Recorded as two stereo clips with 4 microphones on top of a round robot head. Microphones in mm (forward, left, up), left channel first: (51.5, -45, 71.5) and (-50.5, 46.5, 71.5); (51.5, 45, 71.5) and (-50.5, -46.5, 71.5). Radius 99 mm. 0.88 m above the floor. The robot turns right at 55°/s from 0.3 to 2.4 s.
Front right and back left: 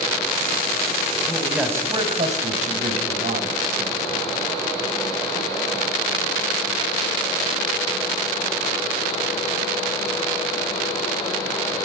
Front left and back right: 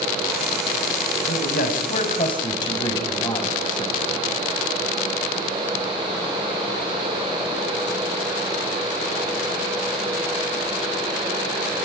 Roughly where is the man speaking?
Ahead left.